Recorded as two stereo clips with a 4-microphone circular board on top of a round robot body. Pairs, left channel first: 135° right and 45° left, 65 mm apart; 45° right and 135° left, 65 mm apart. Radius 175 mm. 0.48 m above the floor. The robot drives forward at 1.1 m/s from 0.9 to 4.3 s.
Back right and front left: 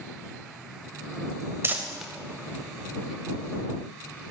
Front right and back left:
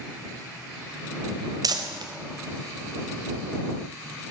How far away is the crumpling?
About 0.6 m.